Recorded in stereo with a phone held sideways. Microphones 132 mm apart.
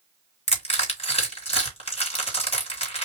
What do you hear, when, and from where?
0.5 s crushing: 50° left (ahead or behind), 2.5 m